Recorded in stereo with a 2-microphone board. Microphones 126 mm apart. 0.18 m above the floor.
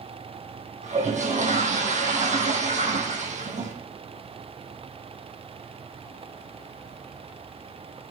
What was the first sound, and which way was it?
A toilet flushing, 70° right (ahead or behind).